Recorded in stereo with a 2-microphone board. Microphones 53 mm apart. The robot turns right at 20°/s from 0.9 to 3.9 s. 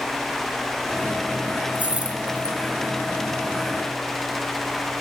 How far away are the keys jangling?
About 2.5 m.